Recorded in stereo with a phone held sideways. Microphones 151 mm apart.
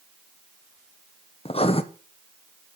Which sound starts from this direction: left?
Writing, at 1.4 s.